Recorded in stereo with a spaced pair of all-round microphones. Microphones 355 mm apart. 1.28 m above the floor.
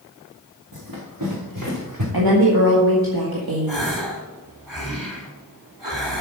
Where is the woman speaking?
85° right, 1.8 m.